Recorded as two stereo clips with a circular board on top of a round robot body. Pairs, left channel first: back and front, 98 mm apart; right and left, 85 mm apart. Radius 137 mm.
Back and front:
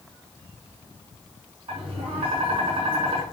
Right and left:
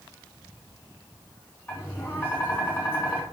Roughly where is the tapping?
Ahead right.